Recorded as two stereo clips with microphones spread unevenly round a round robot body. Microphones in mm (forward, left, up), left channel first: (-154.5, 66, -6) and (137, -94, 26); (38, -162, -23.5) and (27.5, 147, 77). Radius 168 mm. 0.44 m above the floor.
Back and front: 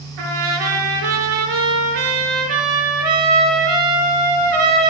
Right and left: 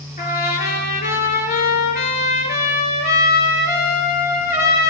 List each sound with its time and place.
0.2 s a trumpet: 20° right, 4 m